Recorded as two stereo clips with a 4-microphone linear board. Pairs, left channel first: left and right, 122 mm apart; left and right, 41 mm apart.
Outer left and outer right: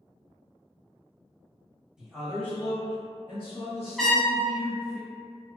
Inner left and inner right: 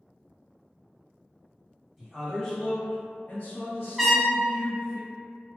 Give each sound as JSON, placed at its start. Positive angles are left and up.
{"t": 2.0, "sound": "a man speaking", "side_deg": -5, "distance_m": 0.9}
{"t": 4.0, "sound": "a trumpet", "side_deg": 0, "distance_m": 0.6}